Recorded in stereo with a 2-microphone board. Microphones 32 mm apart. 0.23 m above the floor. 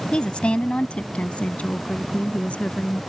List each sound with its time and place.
0.1 s a woman speaking: 30° left (ahead or behind); by 3.0 s 45° left (ahead or behind)